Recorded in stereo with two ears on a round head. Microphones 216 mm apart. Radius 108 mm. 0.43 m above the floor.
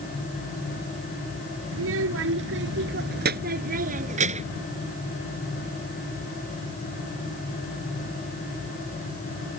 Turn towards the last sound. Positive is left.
turn(degrees=-25)  # may be behind; listen again after turning